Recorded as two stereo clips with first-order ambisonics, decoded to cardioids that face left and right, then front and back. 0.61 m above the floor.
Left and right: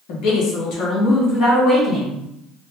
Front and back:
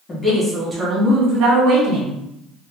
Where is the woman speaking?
75° left, 0.9 m; by 2.2 s straight behind, 1.3 m.